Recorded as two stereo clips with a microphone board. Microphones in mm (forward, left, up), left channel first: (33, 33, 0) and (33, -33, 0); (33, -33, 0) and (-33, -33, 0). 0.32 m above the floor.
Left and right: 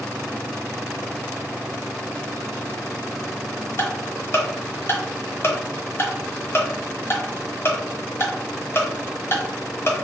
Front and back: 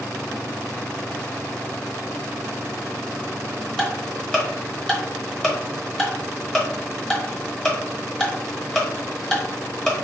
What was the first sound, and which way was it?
Ticking, 70° left.